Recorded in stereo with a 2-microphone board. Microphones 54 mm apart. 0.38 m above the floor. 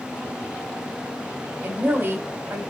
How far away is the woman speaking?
About 1.8 m.